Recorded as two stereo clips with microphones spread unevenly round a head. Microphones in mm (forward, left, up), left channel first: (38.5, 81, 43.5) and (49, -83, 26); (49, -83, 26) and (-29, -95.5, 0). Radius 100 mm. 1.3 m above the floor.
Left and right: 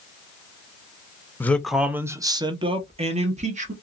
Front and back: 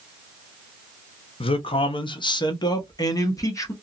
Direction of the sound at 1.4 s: 15° left.